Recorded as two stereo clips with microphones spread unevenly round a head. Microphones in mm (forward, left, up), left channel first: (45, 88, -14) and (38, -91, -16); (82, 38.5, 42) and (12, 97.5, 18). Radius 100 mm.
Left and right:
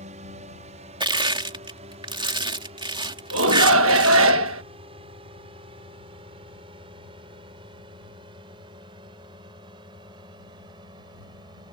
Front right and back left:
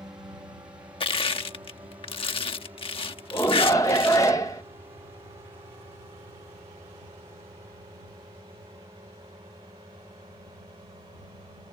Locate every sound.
0.0 s a drone: 145° right; by 11.7 s 160° right
1.0 s crushing: 30° right
3.3 s a shout: 110° right